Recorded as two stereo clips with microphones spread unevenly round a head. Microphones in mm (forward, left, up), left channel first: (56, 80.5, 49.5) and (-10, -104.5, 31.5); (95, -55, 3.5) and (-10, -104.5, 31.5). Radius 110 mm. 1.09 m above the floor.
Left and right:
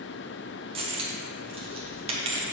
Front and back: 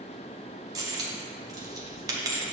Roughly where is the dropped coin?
Behind.